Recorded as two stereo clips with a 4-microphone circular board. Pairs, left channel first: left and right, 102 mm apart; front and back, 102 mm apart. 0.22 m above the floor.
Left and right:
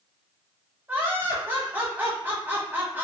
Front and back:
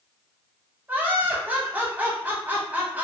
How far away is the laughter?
About 1.1 m.